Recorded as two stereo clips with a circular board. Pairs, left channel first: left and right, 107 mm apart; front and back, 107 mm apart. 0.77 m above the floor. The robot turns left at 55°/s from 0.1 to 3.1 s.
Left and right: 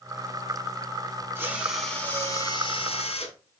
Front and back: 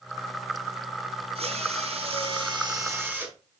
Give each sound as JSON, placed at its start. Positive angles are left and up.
{"t": 1.4, "sound": "a drill", "azimuth_deg": -155, "distance_m": 2.5}